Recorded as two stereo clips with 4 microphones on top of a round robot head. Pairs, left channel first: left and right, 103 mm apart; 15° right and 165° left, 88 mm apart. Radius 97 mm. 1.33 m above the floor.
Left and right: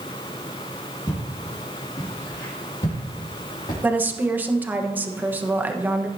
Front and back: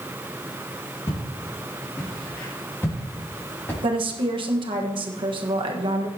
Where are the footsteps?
40° left, 4.5 m; by 3.7 s 50° left, 5.5 m.